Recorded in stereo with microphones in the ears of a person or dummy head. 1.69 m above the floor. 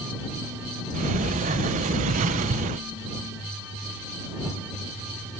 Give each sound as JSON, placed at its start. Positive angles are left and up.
{"t": 0.9, "sound": "a sliding door", "side_deg": -40}